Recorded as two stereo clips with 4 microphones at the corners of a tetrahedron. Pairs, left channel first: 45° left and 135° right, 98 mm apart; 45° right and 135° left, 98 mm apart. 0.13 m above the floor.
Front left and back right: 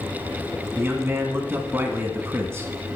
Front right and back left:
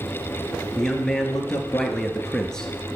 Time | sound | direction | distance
0.8 | a man speaking | 120° right | 1.1 m